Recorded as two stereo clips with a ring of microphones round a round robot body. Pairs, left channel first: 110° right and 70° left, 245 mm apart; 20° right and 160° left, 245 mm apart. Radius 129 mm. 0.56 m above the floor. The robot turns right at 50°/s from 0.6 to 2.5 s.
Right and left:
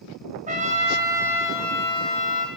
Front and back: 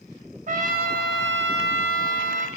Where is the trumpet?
115° left, 0.7 m; by 2.5 s 155° right, 0.7 m.